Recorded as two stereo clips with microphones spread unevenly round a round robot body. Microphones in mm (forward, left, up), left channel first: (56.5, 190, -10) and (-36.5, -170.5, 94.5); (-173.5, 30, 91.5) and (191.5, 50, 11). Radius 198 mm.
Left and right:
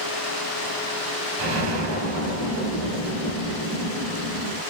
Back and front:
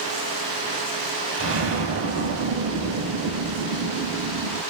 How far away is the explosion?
About 2 m.